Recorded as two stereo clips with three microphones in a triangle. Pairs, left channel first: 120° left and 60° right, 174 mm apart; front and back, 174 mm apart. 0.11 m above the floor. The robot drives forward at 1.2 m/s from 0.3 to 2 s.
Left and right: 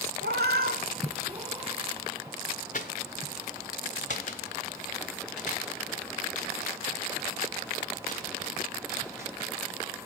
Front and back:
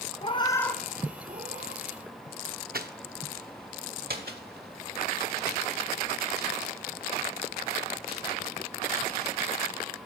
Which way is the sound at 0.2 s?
60° right.